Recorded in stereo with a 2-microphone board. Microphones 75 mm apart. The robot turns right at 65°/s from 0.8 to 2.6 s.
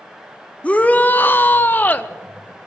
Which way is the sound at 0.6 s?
20° left (ahead or behind).